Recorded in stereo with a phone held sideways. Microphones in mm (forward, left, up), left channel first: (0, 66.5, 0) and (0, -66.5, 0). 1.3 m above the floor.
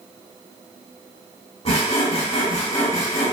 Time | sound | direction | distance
1.6 | sawing | 50° left (ahead or behind) | 1.7 m